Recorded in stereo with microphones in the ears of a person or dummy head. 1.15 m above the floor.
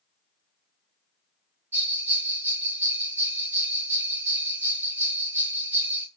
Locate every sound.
1.7 s a bell: 10° right (ahead or behind), 1.3 m